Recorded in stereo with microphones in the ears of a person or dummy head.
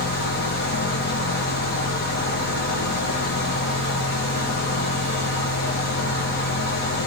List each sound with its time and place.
0.0 s a fan: 45° left (ahead or behind), 0.8 m